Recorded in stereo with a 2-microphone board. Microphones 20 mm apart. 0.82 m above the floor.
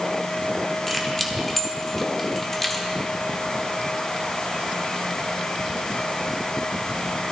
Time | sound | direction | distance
0.9 | keys jangling | 10° left (ahead or behind) | 1.2 m